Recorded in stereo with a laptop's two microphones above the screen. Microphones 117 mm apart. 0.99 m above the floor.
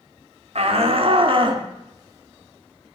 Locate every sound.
0.6 s a shout: 60° right (ahead or behind), 3 m; by 3.0 s 5° right (ahead or behind), 2 m